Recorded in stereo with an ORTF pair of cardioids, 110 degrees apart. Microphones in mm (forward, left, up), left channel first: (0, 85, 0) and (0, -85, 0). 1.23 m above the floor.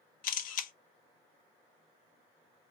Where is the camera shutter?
55° left, 0.7 m.